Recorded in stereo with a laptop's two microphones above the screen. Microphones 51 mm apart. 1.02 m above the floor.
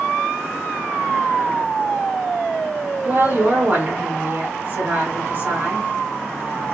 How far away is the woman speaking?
About 1.7 m.